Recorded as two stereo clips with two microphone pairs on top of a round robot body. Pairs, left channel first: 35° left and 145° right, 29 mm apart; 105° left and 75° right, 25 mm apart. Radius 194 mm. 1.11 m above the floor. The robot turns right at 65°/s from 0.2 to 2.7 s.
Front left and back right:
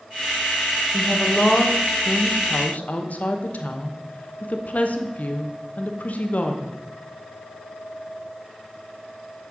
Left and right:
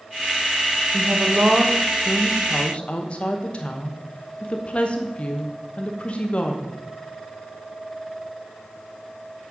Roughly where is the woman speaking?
Ahead right.